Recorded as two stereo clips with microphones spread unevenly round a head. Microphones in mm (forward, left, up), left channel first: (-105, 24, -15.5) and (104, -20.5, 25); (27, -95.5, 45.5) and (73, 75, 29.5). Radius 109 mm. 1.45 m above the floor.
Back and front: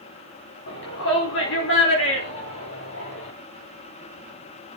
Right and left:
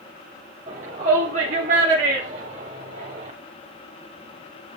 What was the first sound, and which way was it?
A shout, 135° left.